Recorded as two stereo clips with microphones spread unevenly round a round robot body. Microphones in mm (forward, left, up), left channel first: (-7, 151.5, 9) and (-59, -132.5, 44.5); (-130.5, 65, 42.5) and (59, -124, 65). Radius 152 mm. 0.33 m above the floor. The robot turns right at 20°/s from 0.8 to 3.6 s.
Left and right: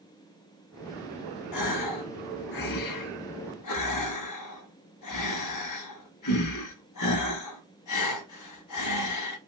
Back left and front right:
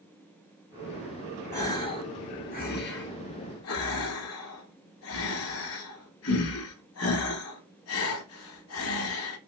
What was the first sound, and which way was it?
A gasp, 55° left.